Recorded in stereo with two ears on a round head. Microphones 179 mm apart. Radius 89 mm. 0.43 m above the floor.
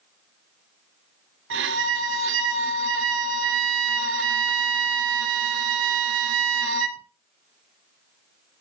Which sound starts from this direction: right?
A violin, at 1.5 s.